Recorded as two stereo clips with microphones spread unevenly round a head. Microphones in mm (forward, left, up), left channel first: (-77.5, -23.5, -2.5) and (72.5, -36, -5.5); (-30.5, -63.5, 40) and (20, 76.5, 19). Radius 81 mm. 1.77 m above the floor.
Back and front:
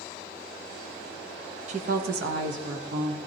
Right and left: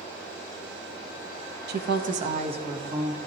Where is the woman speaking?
50° left, 0.8 m; by 3.2 s 5° left, 1.9 m.